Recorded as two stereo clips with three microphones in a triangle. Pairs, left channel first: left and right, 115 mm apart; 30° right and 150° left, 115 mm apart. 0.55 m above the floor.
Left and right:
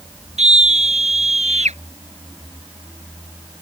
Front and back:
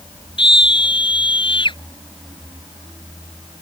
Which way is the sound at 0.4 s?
75° right.